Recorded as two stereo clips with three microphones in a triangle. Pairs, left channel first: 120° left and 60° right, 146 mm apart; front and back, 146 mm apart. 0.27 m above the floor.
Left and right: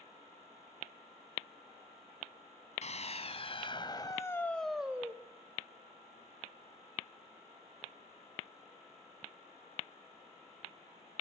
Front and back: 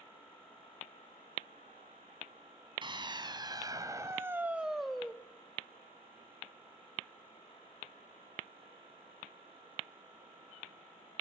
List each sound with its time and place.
2.8 s a scream: 135° left, 2.5 m; by 5.2 s 65° right, 1.5 m